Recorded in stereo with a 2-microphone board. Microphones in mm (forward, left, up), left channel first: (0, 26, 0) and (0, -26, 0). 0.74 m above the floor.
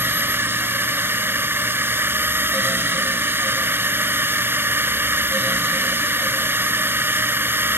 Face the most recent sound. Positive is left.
turn(degrees=-45)  # may be behind; listen again after turning